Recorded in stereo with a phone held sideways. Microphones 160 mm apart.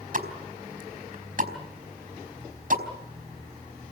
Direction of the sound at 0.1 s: 60° right (ahead or behind).